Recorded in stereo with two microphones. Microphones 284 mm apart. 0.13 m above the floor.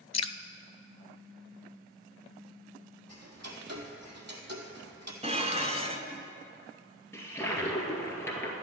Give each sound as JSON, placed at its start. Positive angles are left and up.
{"t": 0.1, "sound": "dripping", "side_deg": 75, "distance_m": 0.5}
{"t": 3.1, "sound": "ticking", "side_deg": -75, "distance_m": 1.6}
{"t": 5.2, "sound": "dishes clattering", "side_deg": -25, "distance_m": 0.9}
{"t": 7.1, "sound": "a toilet flushing", "side_deg": 10, "distance_m": 2.0}